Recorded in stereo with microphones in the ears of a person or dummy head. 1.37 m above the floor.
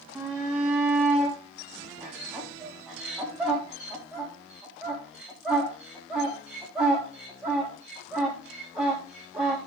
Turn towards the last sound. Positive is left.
turn(degrees=-5)  # may be behind; listen again after turning